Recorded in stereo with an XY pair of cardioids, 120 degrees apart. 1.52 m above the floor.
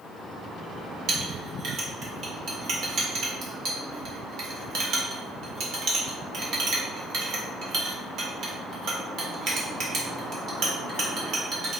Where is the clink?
65° right, 1.6 m.